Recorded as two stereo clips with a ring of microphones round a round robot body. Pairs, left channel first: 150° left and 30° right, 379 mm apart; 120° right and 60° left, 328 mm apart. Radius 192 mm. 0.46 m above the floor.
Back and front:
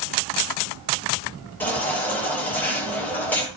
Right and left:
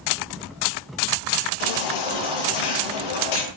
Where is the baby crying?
125° right, 9.5 m.